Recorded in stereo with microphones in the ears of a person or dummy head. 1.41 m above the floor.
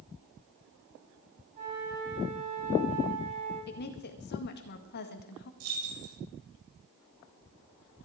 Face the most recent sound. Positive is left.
turn(degrees=-80)